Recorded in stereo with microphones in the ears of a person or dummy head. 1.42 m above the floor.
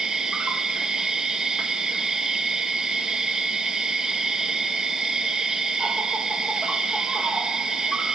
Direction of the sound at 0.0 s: Centre (ahead or behind).